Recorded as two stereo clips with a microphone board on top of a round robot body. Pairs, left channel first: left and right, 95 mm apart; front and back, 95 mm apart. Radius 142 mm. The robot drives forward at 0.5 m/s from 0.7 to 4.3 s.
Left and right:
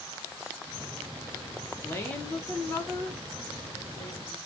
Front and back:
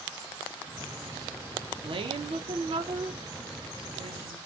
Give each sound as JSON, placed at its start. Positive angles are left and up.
{"t": 1.8, "sound": "a woman speaking", "azimuth_deg": 155, "distance_m": 0.6}